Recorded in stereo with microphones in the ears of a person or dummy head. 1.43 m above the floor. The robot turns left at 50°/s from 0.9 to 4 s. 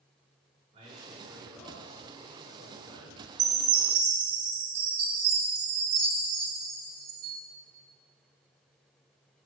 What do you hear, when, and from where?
0.7 s a man speaking: 145° right, 3 m; by 3.3 s 95° left, 3 m
3.4 s a chime: 60° right, 1.5 m; by 7.4 s 90° right, 1.5 m